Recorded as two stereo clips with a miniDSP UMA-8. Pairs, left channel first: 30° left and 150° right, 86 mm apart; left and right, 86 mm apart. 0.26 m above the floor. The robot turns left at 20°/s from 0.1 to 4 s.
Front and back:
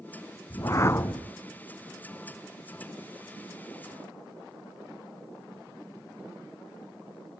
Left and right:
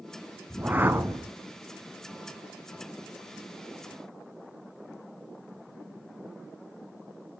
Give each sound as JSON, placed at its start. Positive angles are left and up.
{"t": 0.5, "sound": "a whoosh", "azimuth_deg": -15, "distance_m": 0.6}